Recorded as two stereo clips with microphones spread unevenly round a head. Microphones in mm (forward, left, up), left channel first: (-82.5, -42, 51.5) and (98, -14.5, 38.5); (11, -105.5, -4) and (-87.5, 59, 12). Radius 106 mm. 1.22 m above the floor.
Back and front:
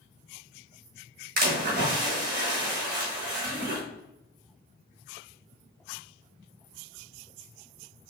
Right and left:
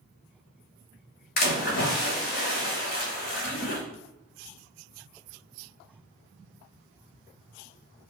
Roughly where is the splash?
Ahead right.